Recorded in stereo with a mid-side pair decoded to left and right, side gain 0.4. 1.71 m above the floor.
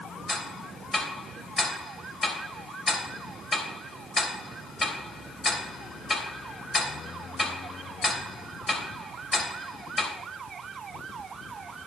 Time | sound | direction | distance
0.3 | ticking | 35° left | 3 m